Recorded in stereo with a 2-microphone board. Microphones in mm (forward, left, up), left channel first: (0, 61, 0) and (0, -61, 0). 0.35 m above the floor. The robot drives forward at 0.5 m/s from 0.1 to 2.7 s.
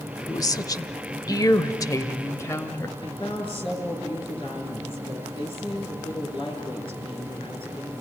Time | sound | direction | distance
0.3 | a woman speaking | 30° left (ahead or behind) | 1.0 m
3.0 | a woman speaking | 45° left (ahead or behind) | 6 m